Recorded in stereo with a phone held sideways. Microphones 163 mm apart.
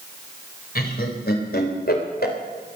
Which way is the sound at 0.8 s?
70° left (ahead or behind).